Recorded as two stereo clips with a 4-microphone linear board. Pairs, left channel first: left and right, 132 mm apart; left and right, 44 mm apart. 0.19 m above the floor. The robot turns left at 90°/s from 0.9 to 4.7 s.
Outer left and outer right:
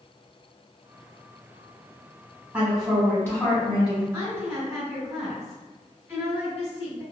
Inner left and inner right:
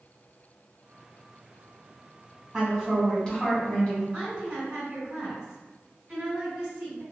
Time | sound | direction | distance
2.5 | a woman speaking | 10° right (ahead or behind) | 1.2 m
4.1 | a woman speaking | 20° right (ahead or behind) | 1.6 m